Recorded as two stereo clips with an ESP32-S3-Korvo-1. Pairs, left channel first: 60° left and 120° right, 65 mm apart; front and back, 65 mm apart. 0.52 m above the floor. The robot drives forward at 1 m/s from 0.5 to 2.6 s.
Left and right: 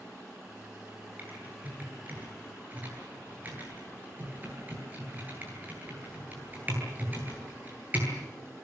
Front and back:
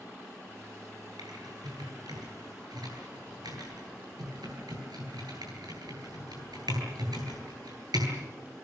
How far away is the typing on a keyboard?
About 10 m.